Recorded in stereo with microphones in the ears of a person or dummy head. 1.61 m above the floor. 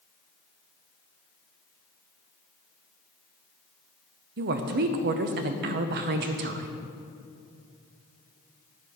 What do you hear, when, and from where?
4.4 s a woman speaking: 50° right (ahead or behind), 0.7 m